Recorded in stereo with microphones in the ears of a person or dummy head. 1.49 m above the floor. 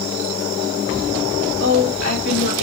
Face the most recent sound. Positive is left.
turn(degrees=60)  # may be behind; listen again after turning